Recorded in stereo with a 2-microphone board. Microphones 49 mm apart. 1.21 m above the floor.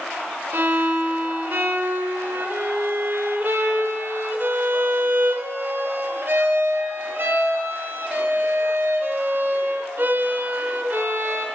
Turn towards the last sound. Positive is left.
turn(degrees=-55)  # may be behind; listen again after turning